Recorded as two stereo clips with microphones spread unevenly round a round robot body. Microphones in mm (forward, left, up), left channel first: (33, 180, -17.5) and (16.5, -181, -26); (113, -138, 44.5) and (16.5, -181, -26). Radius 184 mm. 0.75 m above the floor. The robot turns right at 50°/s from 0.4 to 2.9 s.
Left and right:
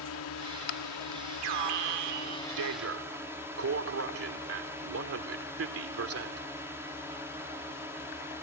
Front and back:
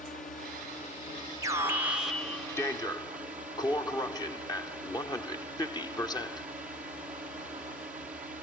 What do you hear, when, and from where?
0.0 s a drone: 60° left; by 8.4 s 175° right
1.4 s an alarm: 115° right; by 6.5 s 40° right